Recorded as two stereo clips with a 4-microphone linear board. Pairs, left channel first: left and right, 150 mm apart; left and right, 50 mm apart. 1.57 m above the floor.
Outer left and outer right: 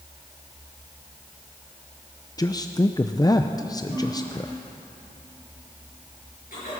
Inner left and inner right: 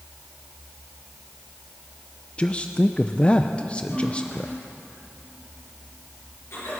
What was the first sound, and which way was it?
A man speaking, 25° left (ahead or behind).